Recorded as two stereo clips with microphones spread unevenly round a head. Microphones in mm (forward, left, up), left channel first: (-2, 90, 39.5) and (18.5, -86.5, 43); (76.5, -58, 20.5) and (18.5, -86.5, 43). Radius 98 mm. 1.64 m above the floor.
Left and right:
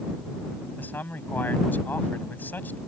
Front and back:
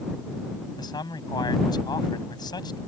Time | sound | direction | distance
0.8 | a man speaking | 15° left | ?